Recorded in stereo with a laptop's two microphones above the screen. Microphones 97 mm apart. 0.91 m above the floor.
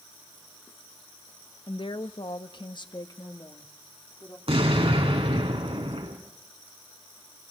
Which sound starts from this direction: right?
An explosion, at 4.5 s.